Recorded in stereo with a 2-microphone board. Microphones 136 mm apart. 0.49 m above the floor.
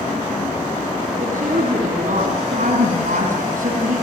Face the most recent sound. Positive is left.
turn(degrees=-75)  # may be behind; listen again after turning